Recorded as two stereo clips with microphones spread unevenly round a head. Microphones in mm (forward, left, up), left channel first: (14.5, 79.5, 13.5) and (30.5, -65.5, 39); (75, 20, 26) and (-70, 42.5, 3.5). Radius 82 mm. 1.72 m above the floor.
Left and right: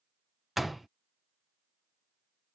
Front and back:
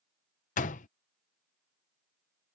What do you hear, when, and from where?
0.6 s a door slam: straight ahead